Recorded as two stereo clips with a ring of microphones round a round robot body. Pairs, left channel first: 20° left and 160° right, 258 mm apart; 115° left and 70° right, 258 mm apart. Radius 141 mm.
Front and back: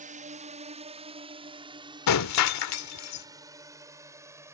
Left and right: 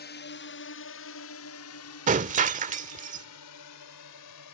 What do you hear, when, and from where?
0.0 s a drone: 150° left; by 4.5 s 125° left
2.1 s breaking glass: 5° right